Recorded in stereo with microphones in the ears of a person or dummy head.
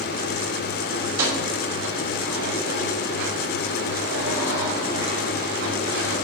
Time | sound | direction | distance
1.0 | keys jangling | 75° right (ahead or behind) | 5.5 m